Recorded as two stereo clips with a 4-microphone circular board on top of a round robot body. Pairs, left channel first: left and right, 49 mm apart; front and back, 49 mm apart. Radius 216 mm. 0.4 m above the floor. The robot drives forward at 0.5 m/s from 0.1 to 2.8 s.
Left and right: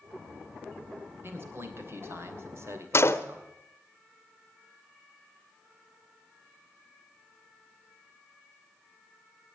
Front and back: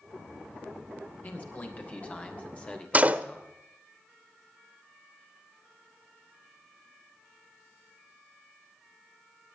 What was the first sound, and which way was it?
A man speaking, 50° right.